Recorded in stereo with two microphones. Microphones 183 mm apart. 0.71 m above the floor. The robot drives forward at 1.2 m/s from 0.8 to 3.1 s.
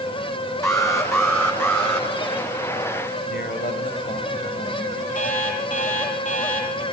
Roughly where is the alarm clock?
Left.